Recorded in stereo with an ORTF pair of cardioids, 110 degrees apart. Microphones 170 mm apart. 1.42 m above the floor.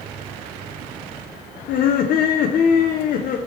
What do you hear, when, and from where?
1.7 s laughter: 55° left, 0.5 m